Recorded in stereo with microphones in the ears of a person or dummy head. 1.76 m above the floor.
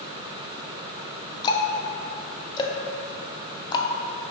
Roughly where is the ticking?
Left.